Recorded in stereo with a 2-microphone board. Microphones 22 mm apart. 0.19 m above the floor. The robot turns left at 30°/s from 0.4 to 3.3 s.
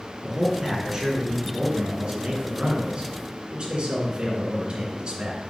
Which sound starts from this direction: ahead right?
A man speaking, at 0.2 s.